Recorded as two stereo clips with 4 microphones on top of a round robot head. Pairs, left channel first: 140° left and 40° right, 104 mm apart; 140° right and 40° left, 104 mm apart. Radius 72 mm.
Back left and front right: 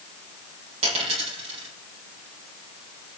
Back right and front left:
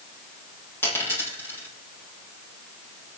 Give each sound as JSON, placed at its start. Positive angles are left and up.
{"t": 0.8, "sound": "a dropped coin", "azimuth_deg": -70, "distance_m": 8.5}